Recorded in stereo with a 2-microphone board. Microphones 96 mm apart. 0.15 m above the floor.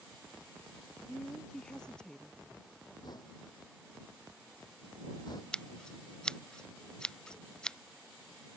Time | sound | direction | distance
1.1 | a woman speaking | 5° left (ahead or behind) | ?
3.0 | knocking | 45° left (ahead or behind) | ?
5.5 | scissors | 10° left (ahead or behind) | ?